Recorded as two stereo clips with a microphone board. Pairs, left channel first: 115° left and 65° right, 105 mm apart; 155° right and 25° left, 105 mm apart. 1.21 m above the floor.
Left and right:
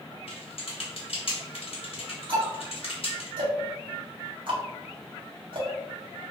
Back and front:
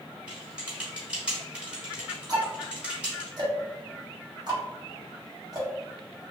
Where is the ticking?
25° right, 1.1 m.